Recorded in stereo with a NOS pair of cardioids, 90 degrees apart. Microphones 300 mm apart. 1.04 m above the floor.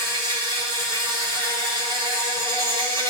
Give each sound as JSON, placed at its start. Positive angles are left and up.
{"t": 0.0, "sound": "an insect", "azimuth_deg": -15, "distance_m": 3.5}